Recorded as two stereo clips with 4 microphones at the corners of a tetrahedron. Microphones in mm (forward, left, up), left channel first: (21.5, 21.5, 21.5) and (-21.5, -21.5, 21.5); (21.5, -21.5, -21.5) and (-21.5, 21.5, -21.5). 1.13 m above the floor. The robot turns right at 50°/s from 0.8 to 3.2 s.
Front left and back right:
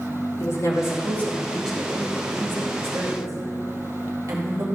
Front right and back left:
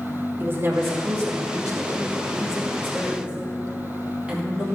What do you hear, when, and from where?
0.4 s a woman speaking: 85° left, 2 m; by 4.7 s 155° right, 2 m